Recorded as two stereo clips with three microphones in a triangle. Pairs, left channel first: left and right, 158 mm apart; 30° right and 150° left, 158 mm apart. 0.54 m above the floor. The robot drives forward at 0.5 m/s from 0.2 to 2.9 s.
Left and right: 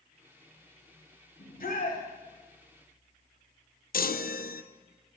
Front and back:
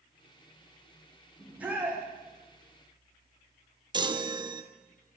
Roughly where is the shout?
Left.